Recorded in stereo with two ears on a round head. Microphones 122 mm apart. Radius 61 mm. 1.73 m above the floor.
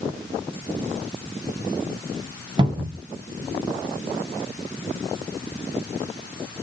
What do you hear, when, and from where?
2.6 s a cupboard door: 35° right (ahead or behind), 1.2 m